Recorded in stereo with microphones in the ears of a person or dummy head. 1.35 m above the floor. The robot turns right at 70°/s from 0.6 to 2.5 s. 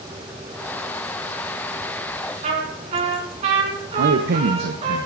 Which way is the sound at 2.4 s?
45° right (ahead or behind).